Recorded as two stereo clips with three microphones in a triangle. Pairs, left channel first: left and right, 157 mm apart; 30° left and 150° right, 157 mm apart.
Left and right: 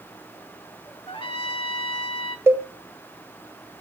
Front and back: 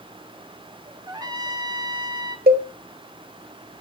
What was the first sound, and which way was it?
A trumpet, 145° left.